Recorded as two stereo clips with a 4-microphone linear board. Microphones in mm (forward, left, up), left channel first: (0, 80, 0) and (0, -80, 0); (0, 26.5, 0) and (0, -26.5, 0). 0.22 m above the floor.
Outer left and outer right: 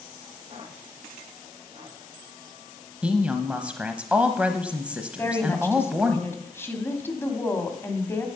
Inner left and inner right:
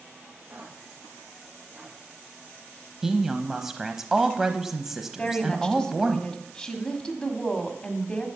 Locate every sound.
0.5 s footsteps: 35° right (ahead or behind), 8 m; by 2.0 s 30° right (ahead or behind), 7 m
3.0 s a woman speaking: 10° right (ahead or behind), 0.9 m
5.2 s a woman speaking: 15° left (ahead or behind), 1.7 m